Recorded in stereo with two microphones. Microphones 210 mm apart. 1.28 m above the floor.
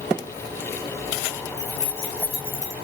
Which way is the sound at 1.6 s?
55° right (ahead or behind).